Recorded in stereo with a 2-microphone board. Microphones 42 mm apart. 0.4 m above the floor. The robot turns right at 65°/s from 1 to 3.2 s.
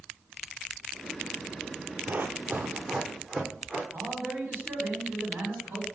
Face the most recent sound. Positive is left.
turn(degrees=-60)  # may be behind; listen again after turning